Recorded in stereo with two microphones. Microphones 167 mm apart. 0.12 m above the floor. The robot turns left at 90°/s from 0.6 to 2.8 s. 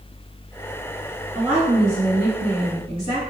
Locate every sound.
1.4 s a woman speaking: 5° right, 2.0 m; by 3.2 s 135° right, 2.0 m